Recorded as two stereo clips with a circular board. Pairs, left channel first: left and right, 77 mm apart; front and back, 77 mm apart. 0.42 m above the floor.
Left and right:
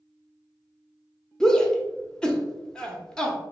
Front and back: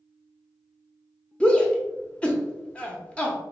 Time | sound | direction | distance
1.4 | a shout | 30° left | 0.7 m